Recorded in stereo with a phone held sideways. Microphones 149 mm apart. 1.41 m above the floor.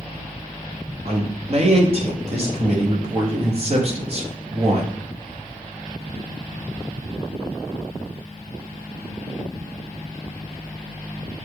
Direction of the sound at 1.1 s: 45° right (ahead or behind).